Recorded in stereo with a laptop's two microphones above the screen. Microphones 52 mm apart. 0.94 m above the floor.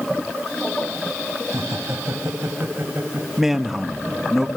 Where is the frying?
No frying in this recording.